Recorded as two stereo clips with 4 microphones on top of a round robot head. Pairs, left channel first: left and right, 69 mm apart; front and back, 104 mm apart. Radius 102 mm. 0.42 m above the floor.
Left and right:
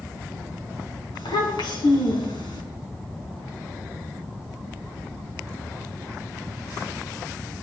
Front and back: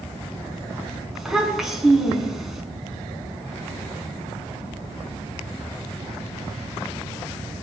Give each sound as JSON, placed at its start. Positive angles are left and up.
{"t": 1.1, "sound": "a child speaking", "azimuth_deg": 95, "distance_m": 4.5}